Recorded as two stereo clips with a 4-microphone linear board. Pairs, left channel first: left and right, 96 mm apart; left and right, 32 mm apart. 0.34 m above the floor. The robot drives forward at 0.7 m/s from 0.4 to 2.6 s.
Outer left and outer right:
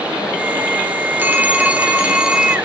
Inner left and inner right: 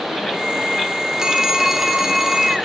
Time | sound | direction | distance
1.2 | a phone ringing | 20° right (ahead or behind) | 0.8 m